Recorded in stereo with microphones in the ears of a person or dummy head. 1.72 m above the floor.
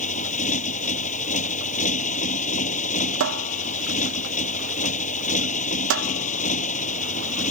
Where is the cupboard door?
70° right (ahead or behind).